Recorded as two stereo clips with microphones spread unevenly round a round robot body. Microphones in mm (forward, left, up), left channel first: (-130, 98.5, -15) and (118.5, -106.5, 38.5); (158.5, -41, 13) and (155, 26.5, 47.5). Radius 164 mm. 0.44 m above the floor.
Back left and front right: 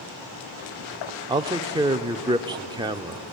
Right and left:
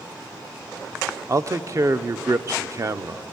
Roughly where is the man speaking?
Ahead left.